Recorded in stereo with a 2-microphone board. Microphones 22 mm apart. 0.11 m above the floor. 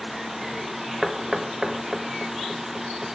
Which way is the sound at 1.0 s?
15° right (ahead or behind).